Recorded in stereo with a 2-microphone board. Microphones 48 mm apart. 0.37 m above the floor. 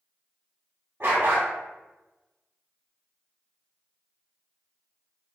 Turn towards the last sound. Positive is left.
turn(degrees=-60)  # may be behind; listen again after turning